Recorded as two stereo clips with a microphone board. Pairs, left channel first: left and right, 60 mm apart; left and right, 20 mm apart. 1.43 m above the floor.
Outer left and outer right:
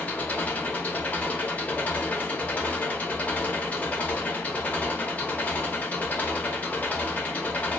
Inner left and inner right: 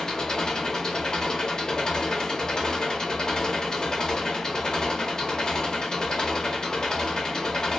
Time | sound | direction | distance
0.0 | an engine running | 25° left (ahead or behind) | 0.7 m